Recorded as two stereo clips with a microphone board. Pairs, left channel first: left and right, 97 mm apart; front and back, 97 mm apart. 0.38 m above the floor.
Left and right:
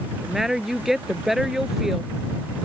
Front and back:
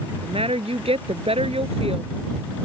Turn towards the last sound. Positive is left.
turn(degrees=-175)